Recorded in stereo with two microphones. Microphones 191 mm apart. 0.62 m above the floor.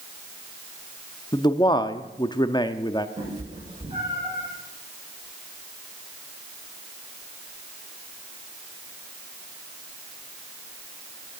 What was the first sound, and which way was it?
A man speaking, 20° left (ahead or behind).